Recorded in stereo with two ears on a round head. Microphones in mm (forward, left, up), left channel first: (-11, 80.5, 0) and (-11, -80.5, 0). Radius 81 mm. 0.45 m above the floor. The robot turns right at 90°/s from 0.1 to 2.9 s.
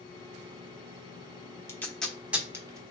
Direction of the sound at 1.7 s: 15° left (ahead or behind).